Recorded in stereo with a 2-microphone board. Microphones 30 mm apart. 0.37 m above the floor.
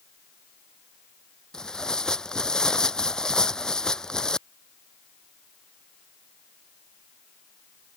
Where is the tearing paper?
25° left (ahead or behind).